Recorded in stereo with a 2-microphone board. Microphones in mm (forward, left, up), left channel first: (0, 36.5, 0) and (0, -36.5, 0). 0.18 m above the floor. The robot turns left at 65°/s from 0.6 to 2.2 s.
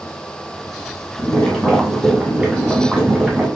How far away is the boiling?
About 1.6 m.